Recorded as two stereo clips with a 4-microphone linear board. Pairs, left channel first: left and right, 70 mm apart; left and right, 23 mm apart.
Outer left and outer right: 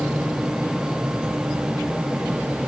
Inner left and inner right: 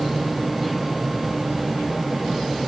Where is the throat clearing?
I don't hear throat clearing.